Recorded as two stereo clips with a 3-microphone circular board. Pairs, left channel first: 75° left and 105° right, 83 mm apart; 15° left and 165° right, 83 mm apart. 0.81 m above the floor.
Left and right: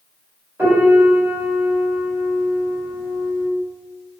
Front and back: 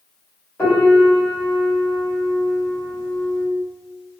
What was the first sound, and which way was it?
A piano, 45° right.